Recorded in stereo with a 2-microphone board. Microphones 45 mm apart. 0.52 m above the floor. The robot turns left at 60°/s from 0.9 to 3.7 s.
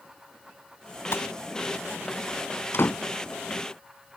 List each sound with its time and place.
1.1 s a gunshot: 75° left (ahead or behind); by 1.3 s 80° left
2.7 s a door slam: 70° left (ahead or behind); by 3.0 s 55° left (ahead or behind)